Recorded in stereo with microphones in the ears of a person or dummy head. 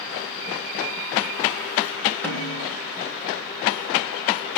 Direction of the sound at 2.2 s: 10° left (ahead or behind).